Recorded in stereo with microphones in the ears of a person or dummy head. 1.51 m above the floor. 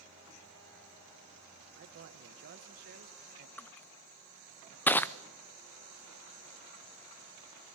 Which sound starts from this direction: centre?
Crushing, at 3.6 s.